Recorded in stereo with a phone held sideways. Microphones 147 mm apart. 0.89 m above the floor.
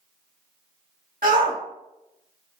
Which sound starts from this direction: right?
A shout, at 1.2 s.